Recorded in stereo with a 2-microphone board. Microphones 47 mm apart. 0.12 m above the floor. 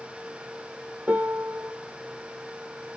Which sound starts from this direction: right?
A piano, at 1.1 s.